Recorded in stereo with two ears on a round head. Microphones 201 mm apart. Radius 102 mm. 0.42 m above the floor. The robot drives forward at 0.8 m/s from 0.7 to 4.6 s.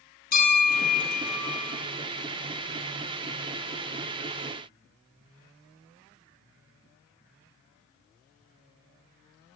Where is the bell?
40° left (ahead or behind), 4 m; by 1.8 s 30° left (ahead or behind), 4.5 m.